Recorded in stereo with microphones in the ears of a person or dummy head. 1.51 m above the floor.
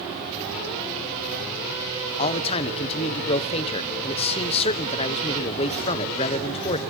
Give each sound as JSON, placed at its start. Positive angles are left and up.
{"t": 2.2, "sound": "a man speaking", "side_deg": 35, "distance_m": 1.1}